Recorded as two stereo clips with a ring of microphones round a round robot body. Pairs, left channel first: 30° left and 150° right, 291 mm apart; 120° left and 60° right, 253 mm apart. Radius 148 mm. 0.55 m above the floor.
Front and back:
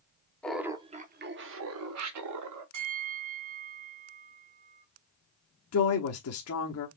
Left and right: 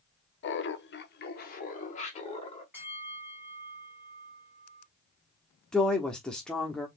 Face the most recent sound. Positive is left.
turn(degrees=35)